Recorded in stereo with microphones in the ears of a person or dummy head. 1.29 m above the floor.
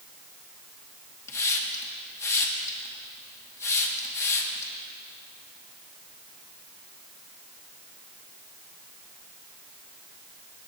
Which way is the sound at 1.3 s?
15° left (ahead or behind).